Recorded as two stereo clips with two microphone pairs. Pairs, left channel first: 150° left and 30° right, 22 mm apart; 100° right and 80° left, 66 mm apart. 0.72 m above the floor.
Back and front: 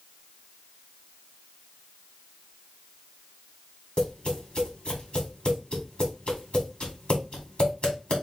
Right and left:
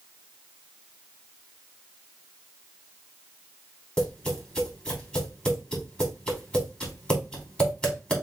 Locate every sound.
4.0 s tapping: 175° right, 2.5 m